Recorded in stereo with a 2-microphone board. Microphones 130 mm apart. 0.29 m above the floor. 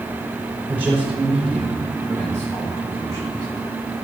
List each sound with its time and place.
0.7 s a man speaking: 20° right (ahead or behind), 2 m; by 3.5 s 30° left (ahead or behind), 2 m